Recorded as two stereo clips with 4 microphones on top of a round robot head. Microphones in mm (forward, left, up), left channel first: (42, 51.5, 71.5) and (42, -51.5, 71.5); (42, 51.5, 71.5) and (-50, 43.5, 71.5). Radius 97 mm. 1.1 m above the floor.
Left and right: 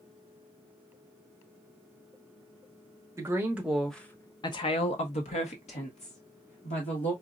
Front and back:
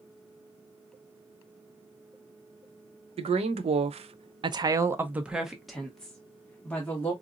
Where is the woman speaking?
160° right, 0.8 m; by 7.1 s 80° left, 1.5 m.